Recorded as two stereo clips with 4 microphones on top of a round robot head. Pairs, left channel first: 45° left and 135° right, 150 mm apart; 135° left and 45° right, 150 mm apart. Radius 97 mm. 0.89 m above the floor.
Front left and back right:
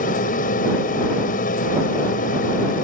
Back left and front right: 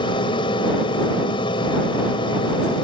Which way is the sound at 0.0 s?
75° left.